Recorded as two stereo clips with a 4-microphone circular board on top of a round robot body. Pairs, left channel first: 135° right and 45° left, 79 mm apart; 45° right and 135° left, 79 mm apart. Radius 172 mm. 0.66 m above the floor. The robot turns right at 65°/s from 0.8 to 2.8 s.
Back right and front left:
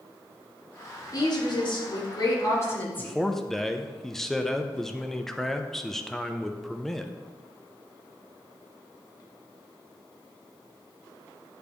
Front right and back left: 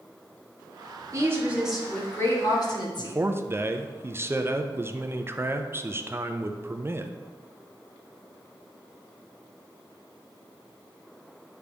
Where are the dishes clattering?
No dishes clattering in this recording.